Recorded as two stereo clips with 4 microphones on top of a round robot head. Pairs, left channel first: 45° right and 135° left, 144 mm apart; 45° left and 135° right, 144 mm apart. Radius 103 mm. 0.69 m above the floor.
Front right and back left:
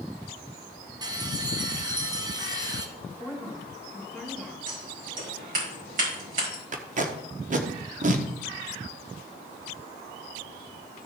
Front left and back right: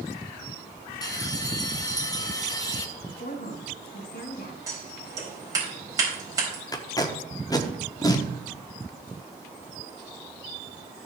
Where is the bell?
90° left, 1.3 m.